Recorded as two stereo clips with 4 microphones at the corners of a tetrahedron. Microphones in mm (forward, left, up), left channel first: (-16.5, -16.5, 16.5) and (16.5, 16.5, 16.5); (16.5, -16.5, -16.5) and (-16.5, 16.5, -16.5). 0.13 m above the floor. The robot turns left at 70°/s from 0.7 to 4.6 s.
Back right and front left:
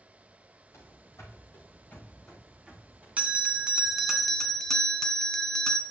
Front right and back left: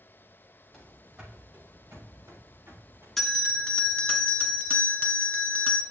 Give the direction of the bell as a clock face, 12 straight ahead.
11 o'clock.